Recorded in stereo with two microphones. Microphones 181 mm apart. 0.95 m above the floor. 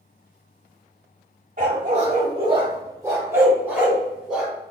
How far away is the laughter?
I don't hear laughter.